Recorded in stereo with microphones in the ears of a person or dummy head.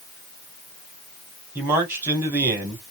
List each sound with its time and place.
1.6 s a man speaking: 10° right (ahead or behind), 2 m